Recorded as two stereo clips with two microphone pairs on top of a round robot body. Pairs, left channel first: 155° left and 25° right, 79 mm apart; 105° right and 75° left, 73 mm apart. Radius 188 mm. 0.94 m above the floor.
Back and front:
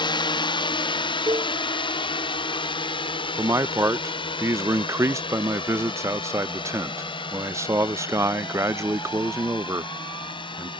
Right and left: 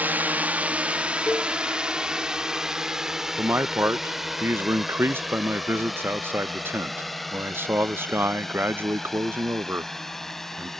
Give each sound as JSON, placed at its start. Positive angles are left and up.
{"t": 0.0, "sound": "a drone", "azimuth_deg": 135}
{"t": 1.3, "sound": "a cowbell", "azimuth_deg": -50}
{"t": 3.4, "sound": "a man speaking", "azimuth_deg": 15}